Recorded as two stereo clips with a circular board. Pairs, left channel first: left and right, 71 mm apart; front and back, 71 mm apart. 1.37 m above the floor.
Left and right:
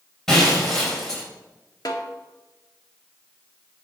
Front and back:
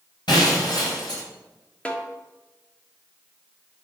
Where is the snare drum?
70° left, 1.5 m.